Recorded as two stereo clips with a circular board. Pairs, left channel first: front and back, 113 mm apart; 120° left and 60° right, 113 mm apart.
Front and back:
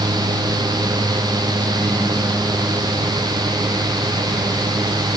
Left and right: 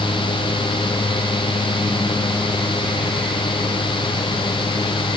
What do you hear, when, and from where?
Only background noise.